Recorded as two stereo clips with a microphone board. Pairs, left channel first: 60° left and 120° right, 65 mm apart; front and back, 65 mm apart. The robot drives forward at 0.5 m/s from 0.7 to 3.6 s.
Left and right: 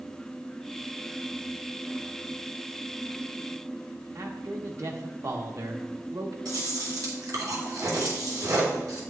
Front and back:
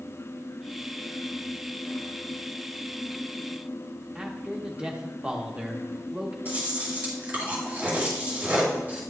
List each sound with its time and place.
4.2 s a man speaking: 110° right, 0.9 m
6.5 s chewing: 120° right, 3 m